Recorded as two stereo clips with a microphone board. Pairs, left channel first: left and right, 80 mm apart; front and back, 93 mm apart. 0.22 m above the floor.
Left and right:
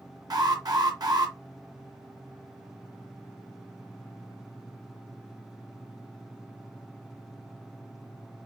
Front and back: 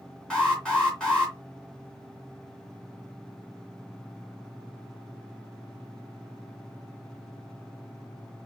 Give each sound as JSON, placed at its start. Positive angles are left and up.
{"t": 0.3, "sound": "an alarm", "azimuth_deg": -80, "distance_m": 2.5}